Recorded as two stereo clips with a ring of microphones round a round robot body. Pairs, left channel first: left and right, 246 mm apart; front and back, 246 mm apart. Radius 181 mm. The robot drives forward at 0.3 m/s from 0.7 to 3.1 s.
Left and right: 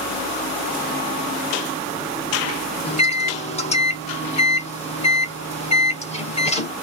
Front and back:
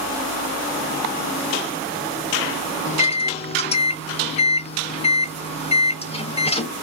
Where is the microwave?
40° left, 0.7 m; by 6.7 s 45° left, 0.7 m.